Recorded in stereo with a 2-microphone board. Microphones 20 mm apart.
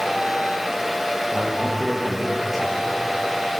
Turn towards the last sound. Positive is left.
turn(degrees=-5)  # may be behind; listen again after turning